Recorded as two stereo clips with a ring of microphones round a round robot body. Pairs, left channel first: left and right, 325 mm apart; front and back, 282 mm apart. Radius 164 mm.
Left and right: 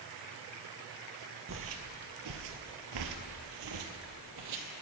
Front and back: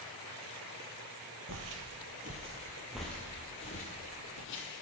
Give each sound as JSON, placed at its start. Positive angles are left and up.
{"t": 1.5, "sound": "footsteps", "azimuth_deg": -140, "distance_m": 1.1}